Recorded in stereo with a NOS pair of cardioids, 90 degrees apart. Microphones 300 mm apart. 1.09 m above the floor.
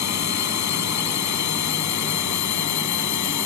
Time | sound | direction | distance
0.0 | a drone | 65° left | ?